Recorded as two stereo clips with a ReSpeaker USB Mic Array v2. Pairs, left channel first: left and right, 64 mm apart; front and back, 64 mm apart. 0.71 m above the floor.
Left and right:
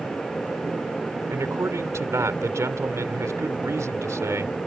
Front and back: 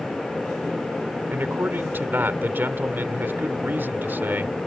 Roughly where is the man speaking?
Behind right.